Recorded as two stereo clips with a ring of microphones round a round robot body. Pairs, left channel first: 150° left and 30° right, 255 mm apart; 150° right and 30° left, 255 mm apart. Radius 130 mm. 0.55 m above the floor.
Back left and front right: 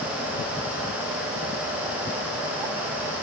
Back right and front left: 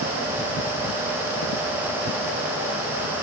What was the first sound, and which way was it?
Only background noise.